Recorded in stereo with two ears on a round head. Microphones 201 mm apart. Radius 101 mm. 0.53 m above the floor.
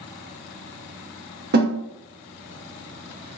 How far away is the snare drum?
About 0.9 m.